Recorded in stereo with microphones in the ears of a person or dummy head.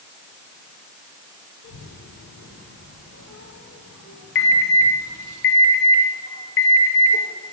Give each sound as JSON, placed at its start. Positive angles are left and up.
{"t": 1.6, "sound": "a child speaking", "side_deg": 70, "distance_m": 2.5}
{"t": 4.3, "sound": "an alarm", "side_deg": 60, "distance_m": 2.5}